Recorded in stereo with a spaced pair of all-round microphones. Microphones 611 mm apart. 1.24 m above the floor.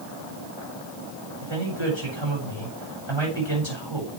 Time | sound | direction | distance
1.4 | a man speaking | 45° right (ahead or behind) | 7.5 m